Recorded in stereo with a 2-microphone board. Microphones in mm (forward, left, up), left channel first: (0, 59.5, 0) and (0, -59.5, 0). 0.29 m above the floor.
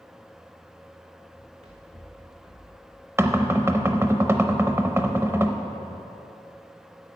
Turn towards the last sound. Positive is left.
turn(degrees=-20)  # may be behind; listen again after turning